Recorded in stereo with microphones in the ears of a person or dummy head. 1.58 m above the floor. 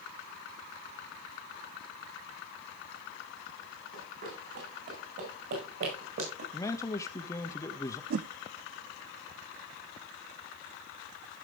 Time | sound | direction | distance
3.9 | running footsteps | 65° right (ahead or behind) | 6 m
6.5 | a man speaking | 20° left (ahead or behind) | 0.8 m
8.1 | a whoosh | 55° right (ahead or behind) | 0.7 m